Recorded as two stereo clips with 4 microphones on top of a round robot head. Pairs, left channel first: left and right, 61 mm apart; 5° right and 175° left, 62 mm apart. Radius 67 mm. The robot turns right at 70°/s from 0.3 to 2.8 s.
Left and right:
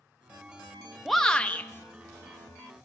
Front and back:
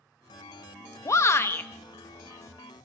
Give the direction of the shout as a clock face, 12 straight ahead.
12 o'clock.